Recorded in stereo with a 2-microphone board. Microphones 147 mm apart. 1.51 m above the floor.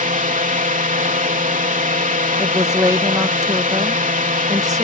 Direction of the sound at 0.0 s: 65° right (ahead or behind).